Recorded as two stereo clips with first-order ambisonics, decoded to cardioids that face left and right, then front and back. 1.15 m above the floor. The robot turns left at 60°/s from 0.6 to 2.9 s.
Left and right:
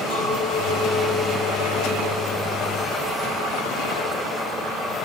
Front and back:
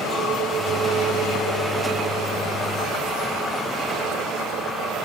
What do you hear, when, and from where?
0.1 s a clink: 110° left, 5 m; by 3.6 s 25° right, 5 m